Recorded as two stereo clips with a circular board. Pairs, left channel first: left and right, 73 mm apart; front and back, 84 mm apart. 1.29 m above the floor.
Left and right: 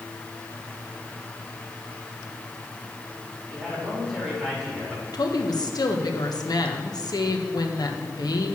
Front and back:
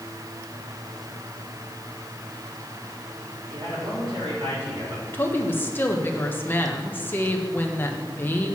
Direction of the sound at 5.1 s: 65° left.